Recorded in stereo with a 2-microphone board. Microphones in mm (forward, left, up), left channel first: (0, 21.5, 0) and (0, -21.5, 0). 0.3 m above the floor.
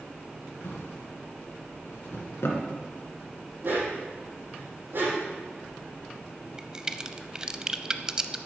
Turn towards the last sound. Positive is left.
turn(degrees=-20)  # may be behind; listen again after turning